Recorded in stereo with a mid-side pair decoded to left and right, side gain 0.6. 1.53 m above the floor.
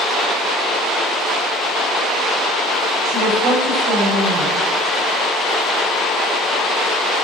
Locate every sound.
3.0 s a woman speaking: 70° right, 9 m